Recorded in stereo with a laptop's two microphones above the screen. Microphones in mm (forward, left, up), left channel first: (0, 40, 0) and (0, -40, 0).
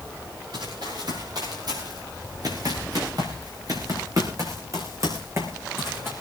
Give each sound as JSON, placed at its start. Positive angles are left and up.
{"t": 0.5, "sound": "running footsteps", "side_deg": -60, "distance_m": 6.5}